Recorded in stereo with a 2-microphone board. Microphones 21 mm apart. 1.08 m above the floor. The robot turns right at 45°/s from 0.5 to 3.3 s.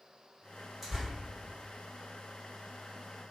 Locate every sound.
0.8 s tearing paper: 5° right (ahead or behind), 1.3 m; by 1.1 s 5° left (ahead or behind), 1.3 m